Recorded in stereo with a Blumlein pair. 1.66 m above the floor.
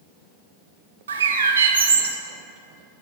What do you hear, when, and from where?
1.1 s a bird: 65° right, 0.5 m